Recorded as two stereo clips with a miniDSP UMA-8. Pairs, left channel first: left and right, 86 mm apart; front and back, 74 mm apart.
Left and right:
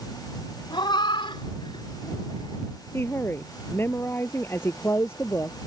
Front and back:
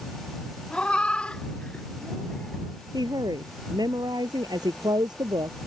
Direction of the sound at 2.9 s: 155° left.